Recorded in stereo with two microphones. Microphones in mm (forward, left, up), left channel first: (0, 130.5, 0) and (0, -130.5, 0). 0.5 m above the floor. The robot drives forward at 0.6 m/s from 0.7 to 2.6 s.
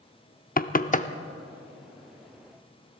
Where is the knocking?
35° left (ahead or behind), 0.5 m; by 1.1 s 25° left (ahead or behind), 0.6 m.